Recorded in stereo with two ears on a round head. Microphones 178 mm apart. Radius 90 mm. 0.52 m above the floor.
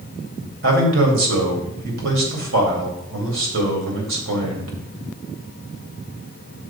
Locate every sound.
0.6 s a man speaking: 70° right (ahead or behind), 2.5 m